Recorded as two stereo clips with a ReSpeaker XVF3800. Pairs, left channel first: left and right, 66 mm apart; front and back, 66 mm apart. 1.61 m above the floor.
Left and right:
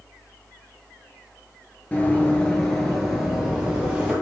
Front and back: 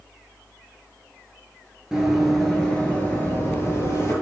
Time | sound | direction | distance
1.9 | running footsteps | 105° left | 1.7 m